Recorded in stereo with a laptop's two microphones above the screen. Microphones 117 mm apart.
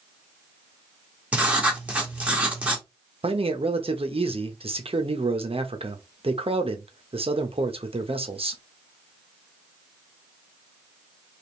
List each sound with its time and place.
1.3 s writing: 10° right (ahead or behind), 1.5 m
3.2 s a man speaking: 55° right (ahead or behind), 1.0 m